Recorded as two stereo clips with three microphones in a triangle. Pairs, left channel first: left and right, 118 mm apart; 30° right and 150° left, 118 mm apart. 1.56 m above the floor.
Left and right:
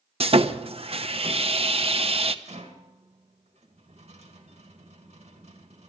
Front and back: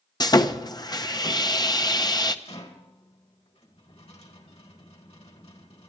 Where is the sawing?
80° right, 0.8 m.